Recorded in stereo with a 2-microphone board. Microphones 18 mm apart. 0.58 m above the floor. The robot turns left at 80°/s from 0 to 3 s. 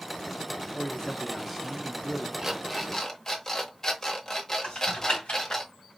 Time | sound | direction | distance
0.7 | a man speaking | 55° left | 1.0 m
2.4 | an alarm clock | 155° right | 0.9 m
4.6 | typing on a keyboard | 80° left | 1.6 m